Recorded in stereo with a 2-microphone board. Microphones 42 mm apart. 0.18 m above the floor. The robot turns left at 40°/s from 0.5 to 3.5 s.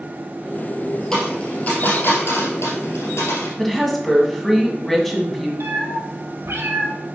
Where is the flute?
No flute in this recording.